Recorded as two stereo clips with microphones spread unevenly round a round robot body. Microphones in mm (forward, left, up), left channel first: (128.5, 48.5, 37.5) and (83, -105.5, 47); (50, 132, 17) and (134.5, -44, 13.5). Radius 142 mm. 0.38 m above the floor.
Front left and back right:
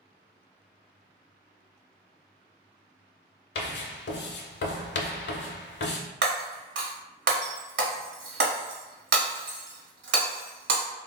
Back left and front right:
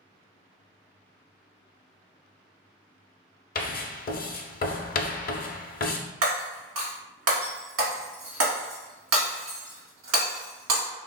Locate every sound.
3.5 s writing: 65° left, 0.5 m
6.2 s breaking glass: 100° right, 1.1 m